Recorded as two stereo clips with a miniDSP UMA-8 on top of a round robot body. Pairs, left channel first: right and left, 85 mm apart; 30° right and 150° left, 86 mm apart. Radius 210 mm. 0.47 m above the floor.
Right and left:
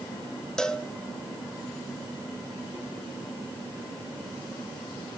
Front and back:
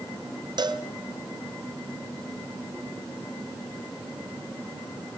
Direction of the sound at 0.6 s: 175° right.